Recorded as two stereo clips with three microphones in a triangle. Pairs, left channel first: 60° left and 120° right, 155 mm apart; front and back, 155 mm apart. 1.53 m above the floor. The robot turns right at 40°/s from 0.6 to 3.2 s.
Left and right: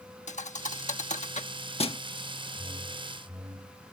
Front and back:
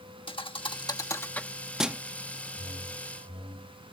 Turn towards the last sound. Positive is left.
turn(degrees=-110)